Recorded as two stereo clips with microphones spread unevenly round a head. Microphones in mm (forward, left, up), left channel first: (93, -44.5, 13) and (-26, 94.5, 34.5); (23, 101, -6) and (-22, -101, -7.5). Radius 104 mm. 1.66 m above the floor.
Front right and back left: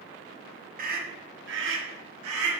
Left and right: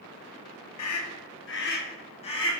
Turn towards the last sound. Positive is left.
turn(degrees=145)